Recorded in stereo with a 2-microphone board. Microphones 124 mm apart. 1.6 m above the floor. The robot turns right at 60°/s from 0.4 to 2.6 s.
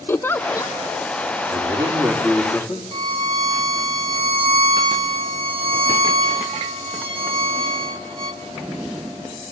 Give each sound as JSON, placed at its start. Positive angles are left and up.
{"t": 0.1, "sound": "a giggle", "side_deg": 15, "distance_m": 0.5}
{"t": 1.5, "sound": "a man speaking", "azimuth_deg": -45, "distance_m": 3.0}
{"t": 2.9, "sound": "a violin", "side_deg": -40, "distance_m": 1.3}